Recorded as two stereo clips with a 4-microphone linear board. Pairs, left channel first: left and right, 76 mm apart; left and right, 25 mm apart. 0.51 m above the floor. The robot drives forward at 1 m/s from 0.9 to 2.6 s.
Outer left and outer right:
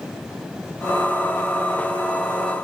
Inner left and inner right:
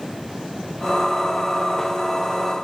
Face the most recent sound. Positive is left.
No sound to turn to.